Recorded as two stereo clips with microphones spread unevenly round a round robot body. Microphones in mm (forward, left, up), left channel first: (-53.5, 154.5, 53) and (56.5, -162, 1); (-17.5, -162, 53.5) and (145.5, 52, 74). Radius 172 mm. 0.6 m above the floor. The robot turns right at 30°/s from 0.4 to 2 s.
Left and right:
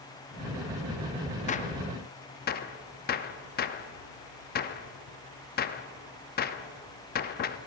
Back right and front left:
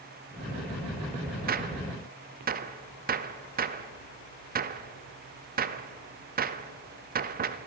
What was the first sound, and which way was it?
A gunshot, 45° left.